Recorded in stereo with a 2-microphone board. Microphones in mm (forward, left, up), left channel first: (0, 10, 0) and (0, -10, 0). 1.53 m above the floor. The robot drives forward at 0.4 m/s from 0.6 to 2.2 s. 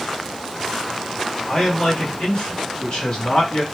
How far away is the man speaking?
About 1.8 m.